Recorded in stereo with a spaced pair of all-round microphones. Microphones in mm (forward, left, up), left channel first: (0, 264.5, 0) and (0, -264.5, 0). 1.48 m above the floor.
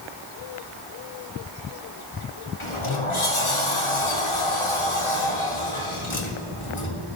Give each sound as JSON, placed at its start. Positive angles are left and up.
{"t": 2.6, "sound": "a sliding door", "side_deg": 65, "distance_m": 2.0}